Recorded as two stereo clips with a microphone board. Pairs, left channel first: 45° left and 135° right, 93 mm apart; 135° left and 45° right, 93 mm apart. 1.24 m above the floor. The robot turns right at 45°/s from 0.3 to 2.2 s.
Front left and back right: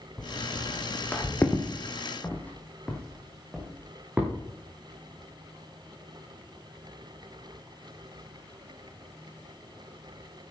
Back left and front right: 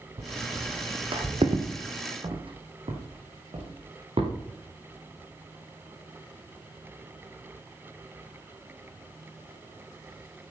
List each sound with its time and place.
0.2 s footsteps: 40° right, 3.5 m; by 4.3 s 60° right, 5 m